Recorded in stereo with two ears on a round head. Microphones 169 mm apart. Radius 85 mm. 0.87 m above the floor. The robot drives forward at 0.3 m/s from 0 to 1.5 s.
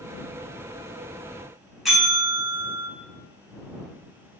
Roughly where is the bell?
Centre.